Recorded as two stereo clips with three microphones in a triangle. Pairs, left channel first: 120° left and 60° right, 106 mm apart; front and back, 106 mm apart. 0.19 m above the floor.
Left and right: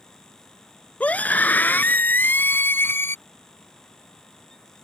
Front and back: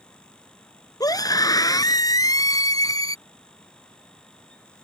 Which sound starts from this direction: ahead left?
A scream, at 1.0 s.